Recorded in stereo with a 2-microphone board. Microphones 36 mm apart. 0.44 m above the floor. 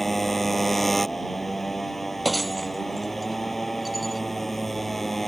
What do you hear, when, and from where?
0.0 s a motorcycle: 5° left (ahead or behind)
2.2 s breaking glass: centre (ahead or behind)